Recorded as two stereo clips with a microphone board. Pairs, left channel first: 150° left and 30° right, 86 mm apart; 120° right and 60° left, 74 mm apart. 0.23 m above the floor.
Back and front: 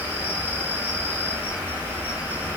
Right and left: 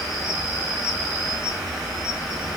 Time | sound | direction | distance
0.0 | an insect | 10° right | 1.1 m